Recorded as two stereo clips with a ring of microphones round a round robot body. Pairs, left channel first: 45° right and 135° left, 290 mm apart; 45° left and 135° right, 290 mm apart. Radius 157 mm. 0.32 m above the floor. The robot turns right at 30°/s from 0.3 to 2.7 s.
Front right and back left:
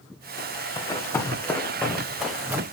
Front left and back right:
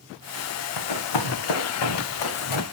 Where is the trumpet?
No trumpet in this recording.